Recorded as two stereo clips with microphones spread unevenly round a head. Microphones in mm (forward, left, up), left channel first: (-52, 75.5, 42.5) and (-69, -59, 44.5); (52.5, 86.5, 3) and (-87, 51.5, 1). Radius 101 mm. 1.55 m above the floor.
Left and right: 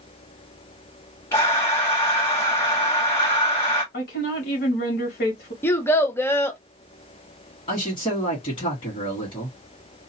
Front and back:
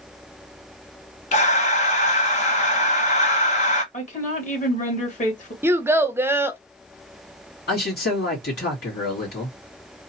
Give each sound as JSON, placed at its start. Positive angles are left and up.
{"t": 1.3, "sound": "breathing", "azimuth_deg": 10, "distance_m": 0.9}
{"t": 3.9, "sound": "a woman speaking", "azimuth_deg": 50, "distance_m": 2.0}
{"t": 5.6, "sound": "a child speaking", "azimuth_deg": 140, "distance_m": 0.7}
{"t": 7.7, "sound": "a man speaking", "azimuth_deg": 15, "distance_m": 2.5}